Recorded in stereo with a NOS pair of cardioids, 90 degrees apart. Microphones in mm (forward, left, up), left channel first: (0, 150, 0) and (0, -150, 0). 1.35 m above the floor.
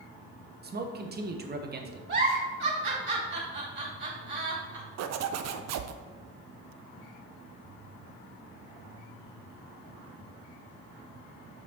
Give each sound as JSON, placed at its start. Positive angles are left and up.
{"t": 0.6, "sound": "a man speaking", "azimuth_deg": -35, "distance_m": 1.3}
{"t": 2.1, "sound": "a giggle", "azimuth_deg": -35, "distance_m": 3.5}
{"t": 5.0, "sound": "a zipper", "azimuth_deg": -60, "distance_m": 0.7}